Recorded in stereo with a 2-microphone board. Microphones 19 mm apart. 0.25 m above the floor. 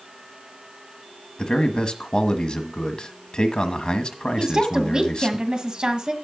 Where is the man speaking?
50° left (ahead or behind), 1.4 m.